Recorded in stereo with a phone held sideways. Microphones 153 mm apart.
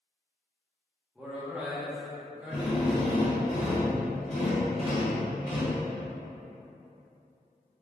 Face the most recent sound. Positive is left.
turn(degrees=40)  # may be behind; listen again after turning